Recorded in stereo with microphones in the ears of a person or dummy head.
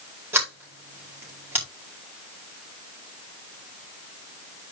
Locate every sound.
0.3 s a sliding door: 10° right (ahead or behind), 4.5 m